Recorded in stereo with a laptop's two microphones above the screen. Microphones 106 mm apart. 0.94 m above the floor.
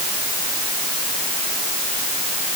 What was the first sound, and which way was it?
Only background noise.